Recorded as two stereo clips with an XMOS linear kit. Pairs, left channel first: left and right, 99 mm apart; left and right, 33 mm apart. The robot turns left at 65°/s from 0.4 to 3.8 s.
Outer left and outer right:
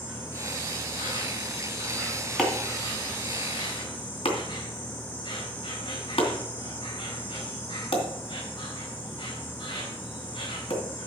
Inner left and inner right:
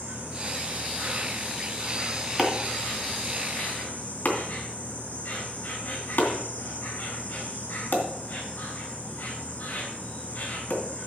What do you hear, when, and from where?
0.0 s an insect: 65° right, 3.5 m; by 11.1 s 75° left, 3.5 m
2.4 s chopping: centre (ahead or behind), 2.5 m; by 10.8 s 80° left, 2.5 m